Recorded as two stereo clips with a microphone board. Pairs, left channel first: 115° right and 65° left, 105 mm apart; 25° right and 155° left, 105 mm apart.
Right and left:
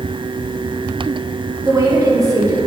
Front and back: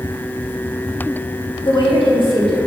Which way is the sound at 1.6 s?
10° left.